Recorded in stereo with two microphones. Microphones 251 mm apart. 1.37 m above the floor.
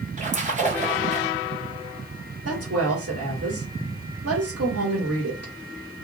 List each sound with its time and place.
0.2 s a splash: 30° right (ahead or behind), 0.9 m
2.5 s a woman speaking: 80° right, 1.7 m